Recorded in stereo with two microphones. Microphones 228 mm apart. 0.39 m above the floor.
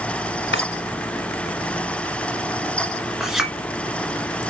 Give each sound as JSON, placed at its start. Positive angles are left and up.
{"t": 0.5, "sound": "a drawer", "side_deg": 55, "distance_m": 1.2}
{"t": 3.2, "sound": "a clink", "side_deg": 0, "distance_m": 3.0}